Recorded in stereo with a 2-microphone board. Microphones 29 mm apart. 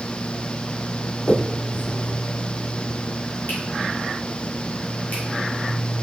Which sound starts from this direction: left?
A finger snap, at 1.3 s.